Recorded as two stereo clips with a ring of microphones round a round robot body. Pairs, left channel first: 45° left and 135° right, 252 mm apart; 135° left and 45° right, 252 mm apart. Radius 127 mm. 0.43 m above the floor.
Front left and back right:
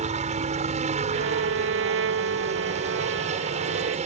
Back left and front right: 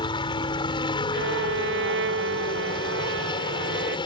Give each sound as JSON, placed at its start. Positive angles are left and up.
{"t": 0.0, "sound": "a helicopter", "azimuth_deg": -170}
{"t": 1.1, "sound": "a violin", "azimuth_deg": -90}